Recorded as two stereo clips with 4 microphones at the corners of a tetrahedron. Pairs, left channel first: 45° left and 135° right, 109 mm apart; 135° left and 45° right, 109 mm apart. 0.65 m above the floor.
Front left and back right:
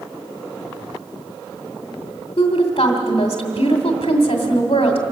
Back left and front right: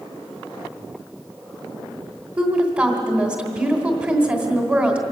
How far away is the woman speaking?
About 2 m.